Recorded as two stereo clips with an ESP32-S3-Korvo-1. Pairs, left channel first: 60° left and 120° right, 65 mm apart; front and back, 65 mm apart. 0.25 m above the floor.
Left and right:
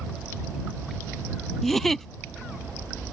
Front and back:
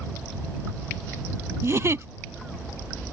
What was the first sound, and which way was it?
A giggle, 145° left.